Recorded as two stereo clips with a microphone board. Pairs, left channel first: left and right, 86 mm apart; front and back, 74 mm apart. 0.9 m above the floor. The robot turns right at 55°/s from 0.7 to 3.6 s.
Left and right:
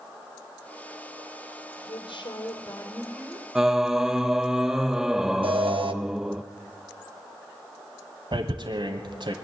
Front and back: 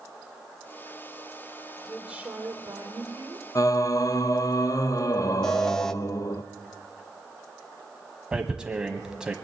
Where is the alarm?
85° right, 0.7 m.